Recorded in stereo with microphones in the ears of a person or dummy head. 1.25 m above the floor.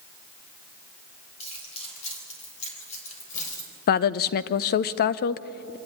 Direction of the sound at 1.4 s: 35° left (ahead or behind).